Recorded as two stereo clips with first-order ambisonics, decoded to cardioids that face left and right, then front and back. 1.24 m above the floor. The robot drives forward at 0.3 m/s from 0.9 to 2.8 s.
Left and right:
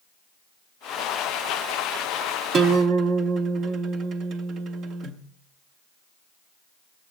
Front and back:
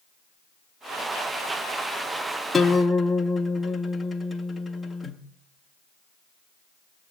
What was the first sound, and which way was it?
A guitar, 80° right.